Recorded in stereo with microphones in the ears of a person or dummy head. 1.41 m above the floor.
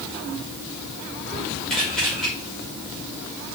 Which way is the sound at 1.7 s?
5° left (ahead or behind).